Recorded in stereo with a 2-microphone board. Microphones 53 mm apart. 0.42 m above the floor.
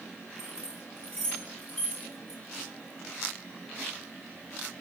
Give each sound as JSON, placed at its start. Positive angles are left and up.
{"t": 0.4, "sound": "keys jangling", "side_deg": 15, "distance_m": 3.0}